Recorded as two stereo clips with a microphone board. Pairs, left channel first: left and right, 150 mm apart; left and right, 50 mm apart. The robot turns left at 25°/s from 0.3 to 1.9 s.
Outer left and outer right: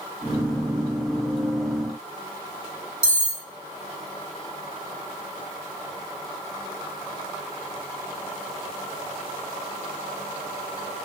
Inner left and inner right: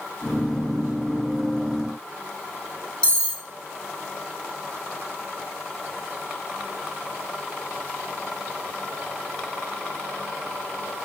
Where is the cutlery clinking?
15° left (ahead or behind), 0.9 m.